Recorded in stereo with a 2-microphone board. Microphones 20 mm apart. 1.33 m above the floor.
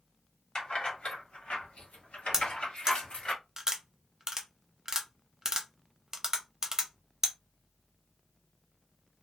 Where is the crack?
No crack in this recording.